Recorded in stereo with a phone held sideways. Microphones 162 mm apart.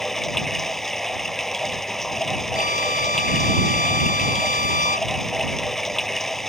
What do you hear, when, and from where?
0.0 s running water: centre (ahead or behind)
2.5 s a violin: 80° right